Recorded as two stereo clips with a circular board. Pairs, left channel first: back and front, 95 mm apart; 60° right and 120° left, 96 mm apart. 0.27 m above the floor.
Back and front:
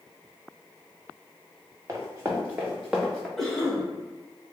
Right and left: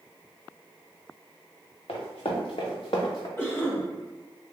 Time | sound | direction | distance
1.9 | running footsteps | 55° right | 1.5 m
3.4 | a cough | 100° right | 1.4 m